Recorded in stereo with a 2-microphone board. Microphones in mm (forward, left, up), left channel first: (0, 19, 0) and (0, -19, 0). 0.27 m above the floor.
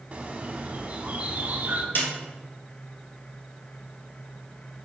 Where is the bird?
40° right (ahead or behind), 0.8 m.